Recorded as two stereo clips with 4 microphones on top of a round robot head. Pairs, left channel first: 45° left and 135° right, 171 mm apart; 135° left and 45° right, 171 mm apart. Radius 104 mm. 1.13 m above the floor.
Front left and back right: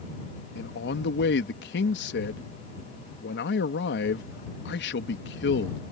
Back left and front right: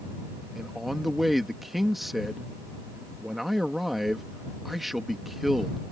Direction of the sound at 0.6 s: 45° left.